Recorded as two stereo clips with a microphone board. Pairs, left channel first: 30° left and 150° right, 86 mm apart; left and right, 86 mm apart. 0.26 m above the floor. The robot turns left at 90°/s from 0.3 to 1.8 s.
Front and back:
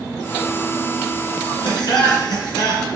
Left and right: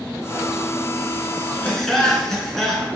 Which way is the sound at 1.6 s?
20° left.